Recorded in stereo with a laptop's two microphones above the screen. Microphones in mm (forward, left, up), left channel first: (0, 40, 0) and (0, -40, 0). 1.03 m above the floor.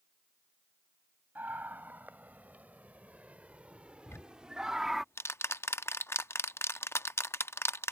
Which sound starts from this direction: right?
A scream, at 1.4 s.